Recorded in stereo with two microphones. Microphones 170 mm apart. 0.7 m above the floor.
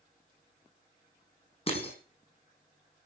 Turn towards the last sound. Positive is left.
turn(degrees=40)  # may be behind; listen again after turning